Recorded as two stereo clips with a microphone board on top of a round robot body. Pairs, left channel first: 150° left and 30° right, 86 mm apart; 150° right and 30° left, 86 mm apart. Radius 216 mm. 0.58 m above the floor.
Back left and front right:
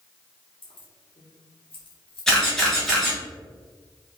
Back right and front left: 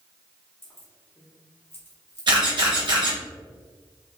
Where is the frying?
I don't hear frying.